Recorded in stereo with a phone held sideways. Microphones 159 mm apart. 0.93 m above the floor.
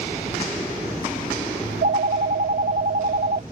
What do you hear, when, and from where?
1.6 s a phone ringing: 75° right (ahead or behind)